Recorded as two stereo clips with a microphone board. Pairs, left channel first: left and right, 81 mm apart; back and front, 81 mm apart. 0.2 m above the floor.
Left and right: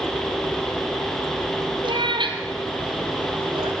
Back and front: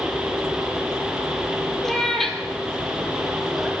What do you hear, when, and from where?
1.8 s a cat meowing: 95° right, 2.5 m; by 3.7 s 90° right, 4.5 m